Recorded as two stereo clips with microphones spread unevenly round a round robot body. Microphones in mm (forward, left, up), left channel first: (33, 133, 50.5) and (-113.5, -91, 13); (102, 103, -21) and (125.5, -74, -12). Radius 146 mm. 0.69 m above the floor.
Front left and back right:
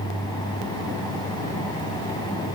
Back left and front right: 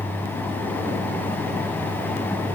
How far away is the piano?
No piano in this recording.